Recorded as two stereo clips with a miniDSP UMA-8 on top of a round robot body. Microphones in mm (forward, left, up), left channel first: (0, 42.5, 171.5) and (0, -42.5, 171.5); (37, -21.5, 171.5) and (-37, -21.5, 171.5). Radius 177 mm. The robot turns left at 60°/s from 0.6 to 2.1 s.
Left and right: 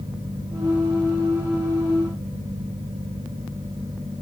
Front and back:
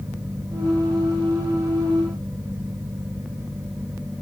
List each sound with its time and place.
Only background noise.